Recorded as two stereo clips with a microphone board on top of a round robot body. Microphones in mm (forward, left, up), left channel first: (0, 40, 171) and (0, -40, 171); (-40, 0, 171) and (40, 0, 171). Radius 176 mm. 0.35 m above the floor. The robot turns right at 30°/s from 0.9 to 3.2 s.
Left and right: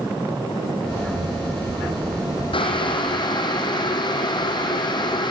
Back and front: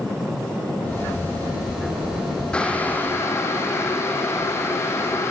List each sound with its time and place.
2.5 s boiling: 100° left, 4 m; by 5.3 s 120° left, 4 m